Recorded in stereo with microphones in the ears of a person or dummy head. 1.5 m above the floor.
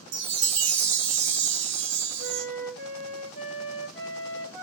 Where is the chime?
70° right (ahead or behind), 0.8 m.